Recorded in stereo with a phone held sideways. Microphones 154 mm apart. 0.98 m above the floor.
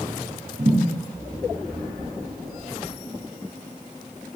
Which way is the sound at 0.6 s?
50° right (ahead or behind).